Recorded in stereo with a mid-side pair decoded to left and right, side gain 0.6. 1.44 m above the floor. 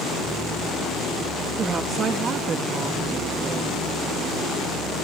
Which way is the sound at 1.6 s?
40° right.